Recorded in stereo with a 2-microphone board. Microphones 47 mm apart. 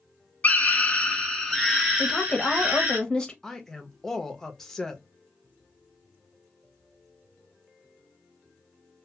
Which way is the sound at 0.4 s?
35° left (ahead or behind).